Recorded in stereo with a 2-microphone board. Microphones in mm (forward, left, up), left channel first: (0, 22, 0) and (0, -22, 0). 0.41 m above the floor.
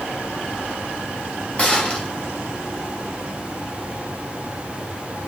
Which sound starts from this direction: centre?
A gunshot, at 1.6 s.